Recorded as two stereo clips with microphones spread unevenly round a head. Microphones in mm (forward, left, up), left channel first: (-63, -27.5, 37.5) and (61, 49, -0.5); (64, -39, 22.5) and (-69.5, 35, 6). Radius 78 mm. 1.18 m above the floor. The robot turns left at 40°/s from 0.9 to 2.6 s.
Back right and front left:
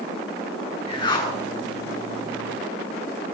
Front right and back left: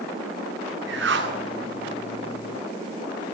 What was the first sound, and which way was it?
A whoosh, 160° left.